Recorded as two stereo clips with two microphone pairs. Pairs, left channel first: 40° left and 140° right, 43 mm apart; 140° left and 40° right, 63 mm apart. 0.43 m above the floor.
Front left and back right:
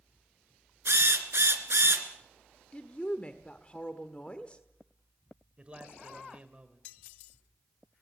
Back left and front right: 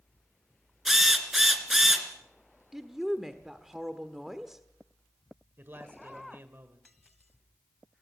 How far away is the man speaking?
About 1.5 m.